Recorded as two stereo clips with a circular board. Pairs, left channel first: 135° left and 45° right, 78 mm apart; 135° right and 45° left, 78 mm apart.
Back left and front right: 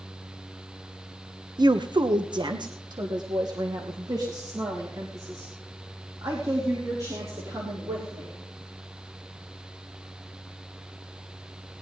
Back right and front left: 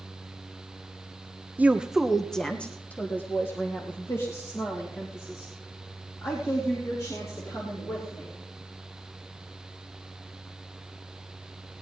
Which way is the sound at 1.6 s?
25° right.